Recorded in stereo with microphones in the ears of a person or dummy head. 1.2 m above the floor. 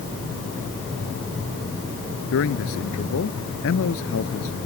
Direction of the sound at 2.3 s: 70° left (ahead or behind).